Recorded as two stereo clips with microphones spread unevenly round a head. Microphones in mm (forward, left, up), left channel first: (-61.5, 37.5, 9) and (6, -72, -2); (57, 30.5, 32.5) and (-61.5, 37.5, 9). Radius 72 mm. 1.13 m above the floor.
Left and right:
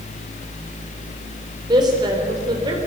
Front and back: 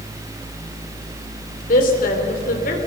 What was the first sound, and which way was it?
A woman speaking, 5° left.